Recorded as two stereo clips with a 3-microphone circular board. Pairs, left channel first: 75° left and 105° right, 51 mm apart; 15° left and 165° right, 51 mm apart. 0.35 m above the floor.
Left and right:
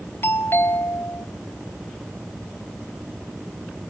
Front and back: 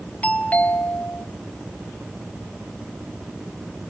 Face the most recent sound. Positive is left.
turn(degrees=65)